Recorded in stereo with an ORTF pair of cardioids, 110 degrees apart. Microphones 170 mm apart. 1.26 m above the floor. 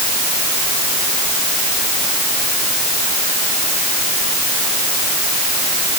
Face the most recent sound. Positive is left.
No sound to turn to.